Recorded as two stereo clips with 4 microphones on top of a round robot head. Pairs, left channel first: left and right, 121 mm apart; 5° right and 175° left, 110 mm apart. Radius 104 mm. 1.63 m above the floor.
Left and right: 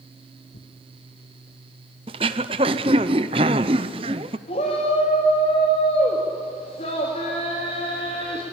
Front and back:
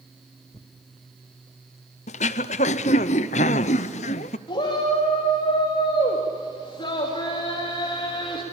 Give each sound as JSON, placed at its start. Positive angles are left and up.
{"t": 0.5, "sound": "tearing paper", "azimuth_deg": 60, "distance_m": 1.2}
{"t": 2.1, "sound": "throat clearing", "azimuth_deg": -35, "distance_m": 0.6}
{"t": 4.5, "sound": "a shout", "azimuth_deg": 40, "distance_m": 2.5}